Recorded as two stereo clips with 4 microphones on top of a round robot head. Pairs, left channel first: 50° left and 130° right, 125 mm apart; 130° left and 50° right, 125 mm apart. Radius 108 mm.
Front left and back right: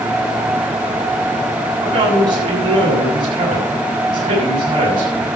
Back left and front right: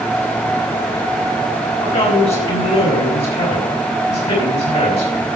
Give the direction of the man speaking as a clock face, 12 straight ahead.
6 o'clock.